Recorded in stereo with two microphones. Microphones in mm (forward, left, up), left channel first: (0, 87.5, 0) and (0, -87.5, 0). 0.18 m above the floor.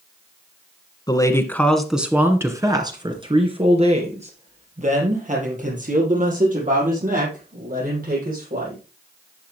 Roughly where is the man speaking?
Left.